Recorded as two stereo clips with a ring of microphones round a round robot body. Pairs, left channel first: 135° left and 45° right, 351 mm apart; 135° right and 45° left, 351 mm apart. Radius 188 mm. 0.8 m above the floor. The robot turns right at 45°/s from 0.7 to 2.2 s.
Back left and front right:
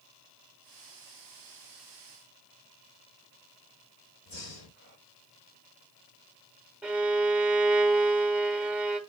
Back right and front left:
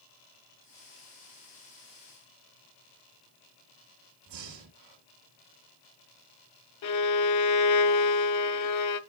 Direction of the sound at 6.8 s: 130° right.